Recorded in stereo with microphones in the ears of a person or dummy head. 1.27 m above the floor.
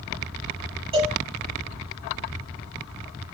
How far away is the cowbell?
About 8.5 m.